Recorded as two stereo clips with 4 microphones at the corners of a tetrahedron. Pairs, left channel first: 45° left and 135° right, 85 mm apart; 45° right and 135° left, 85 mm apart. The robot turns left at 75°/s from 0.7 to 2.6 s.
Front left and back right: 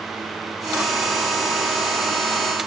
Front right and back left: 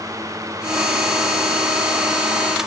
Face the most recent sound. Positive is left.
No sound to turn to.